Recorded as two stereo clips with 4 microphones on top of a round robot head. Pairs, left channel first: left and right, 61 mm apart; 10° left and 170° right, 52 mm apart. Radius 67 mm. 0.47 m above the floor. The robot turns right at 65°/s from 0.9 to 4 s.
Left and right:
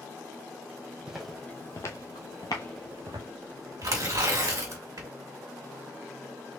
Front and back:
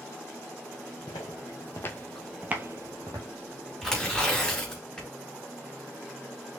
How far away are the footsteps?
About 1.0 m.